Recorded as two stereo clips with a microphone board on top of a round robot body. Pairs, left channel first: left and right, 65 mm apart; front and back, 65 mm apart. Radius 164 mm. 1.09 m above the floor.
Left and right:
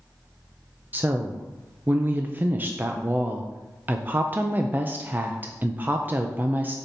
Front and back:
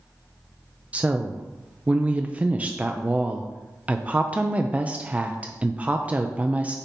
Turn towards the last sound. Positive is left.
turn(degrees=-125)